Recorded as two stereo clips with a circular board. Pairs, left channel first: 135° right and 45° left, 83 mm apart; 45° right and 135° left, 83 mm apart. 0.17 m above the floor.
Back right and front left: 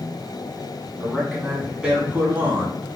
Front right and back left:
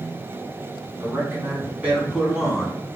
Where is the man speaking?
155° left, 1.4 m; by 2.8 s 40° left, 1.4 m.